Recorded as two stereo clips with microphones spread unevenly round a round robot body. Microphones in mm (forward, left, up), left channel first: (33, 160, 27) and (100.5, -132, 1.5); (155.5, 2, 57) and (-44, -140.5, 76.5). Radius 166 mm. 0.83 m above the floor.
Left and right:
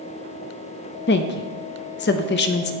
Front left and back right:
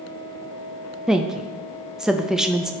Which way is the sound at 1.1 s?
120° left.